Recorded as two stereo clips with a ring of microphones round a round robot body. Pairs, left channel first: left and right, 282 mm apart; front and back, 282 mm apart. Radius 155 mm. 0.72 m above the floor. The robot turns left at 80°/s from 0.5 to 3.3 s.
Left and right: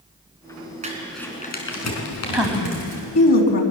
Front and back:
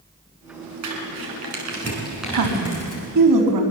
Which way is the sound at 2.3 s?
170° right.